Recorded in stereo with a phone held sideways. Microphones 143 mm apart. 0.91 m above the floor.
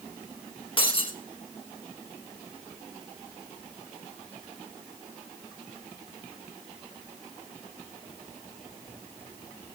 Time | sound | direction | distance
0.8 | breaking glass | 35° left (ahead or behind) | 2.5 m